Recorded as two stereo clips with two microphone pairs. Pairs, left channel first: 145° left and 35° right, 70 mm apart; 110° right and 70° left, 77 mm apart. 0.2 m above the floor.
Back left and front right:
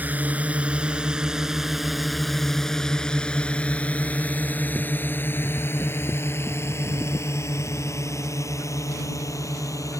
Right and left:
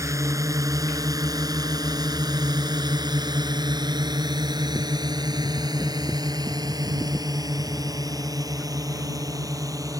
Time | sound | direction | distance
0.0 | a drone | 30° left | ?